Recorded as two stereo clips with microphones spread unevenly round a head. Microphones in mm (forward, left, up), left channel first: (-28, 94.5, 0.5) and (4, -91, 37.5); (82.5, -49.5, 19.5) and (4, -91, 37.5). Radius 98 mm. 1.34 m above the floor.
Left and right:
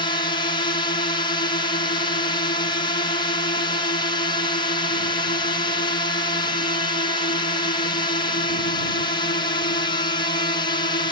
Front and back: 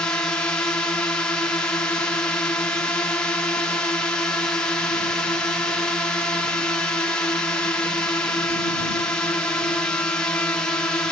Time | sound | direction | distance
0.0 | a drone | 85° left | ?